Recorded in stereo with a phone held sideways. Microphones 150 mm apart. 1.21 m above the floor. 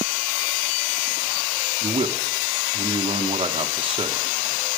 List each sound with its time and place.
1.8 s a man speaking: 35° right (ahead or behind), 1.0 m